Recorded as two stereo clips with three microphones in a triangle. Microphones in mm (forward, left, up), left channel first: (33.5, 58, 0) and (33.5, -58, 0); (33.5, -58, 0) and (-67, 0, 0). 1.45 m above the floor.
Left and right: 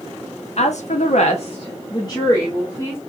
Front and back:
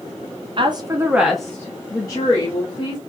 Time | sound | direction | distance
0.6 | a woman speaking | 110° left | 0.6 m